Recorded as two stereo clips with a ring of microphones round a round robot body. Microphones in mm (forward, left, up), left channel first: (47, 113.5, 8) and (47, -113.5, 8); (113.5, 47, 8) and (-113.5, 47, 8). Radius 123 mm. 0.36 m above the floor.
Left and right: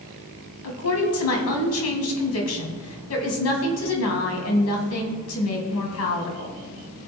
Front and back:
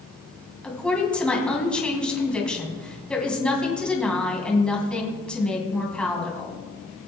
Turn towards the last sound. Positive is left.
turn(degrees=85)